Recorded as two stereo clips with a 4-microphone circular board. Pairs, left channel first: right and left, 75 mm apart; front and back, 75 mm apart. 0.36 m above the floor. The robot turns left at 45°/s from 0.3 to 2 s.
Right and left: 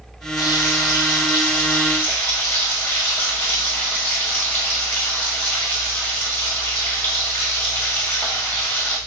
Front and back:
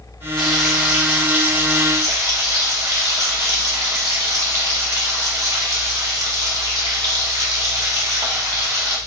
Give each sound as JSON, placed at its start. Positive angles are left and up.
{"t": 0.4, "sound": "frying", "azimuth_deg": -80, "distance_m": 1.4}